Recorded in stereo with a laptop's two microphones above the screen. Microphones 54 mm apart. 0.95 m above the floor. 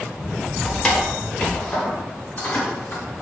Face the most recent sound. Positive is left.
turn(degrees=45)  # may be behind; listen again after turning